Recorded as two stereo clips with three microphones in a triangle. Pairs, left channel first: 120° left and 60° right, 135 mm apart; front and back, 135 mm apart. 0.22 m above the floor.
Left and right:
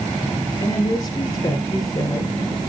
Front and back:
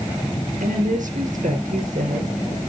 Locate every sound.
0.6 s a woman speaking: straight behind, 3.5 m